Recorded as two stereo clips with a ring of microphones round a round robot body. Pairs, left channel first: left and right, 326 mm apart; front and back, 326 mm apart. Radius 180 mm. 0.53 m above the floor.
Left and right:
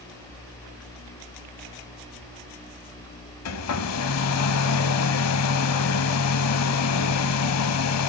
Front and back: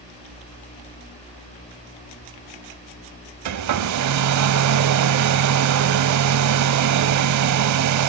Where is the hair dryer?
140° left, 0.8 m.